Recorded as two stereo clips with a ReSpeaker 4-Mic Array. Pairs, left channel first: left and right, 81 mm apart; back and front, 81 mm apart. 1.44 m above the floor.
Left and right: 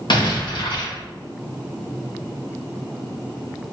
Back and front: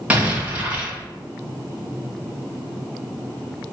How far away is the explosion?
About 1.9 m.